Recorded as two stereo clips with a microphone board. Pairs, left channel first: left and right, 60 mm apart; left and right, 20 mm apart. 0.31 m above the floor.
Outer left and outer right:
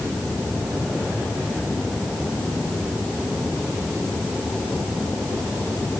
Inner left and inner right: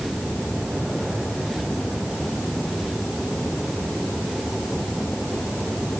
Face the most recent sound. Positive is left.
No sound to turn to.